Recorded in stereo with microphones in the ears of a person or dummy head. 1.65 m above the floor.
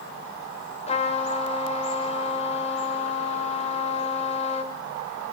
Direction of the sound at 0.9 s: 35° left (ahead or behind).